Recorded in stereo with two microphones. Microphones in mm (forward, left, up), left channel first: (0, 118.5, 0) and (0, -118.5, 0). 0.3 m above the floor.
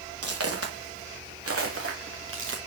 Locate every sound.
0.2 s footsteps: 80° right, 3.5 m; by 2.6 s 55° right (ahead or behind), 2.5 m